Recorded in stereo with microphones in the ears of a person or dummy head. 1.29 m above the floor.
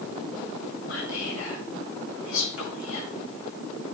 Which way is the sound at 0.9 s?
70° left (ahead or behind).